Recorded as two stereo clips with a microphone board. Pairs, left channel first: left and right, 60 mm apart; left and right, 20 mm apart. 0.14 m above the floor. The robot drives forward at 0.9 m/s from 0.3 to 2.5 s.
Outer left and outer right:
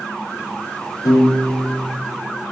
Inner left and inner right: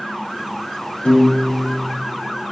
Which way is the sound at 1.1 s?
75° left (ahead or behind).